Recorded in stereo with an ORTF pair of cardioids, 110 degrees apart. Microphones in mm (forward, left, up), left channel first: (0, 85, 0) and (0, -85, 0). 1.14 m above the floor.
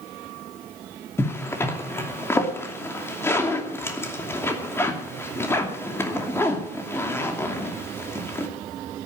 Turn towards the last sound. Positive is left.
turn(degrees=15)